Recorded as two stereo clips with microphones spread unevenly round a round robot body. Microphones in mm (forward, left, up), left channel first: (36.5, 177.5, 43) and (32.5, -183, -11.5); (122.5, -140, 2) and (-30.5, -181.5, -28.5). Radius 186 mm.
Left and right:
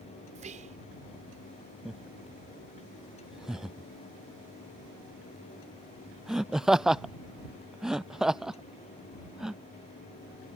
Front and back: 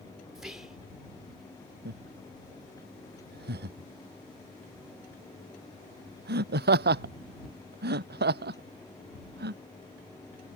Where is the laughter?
Straight behind.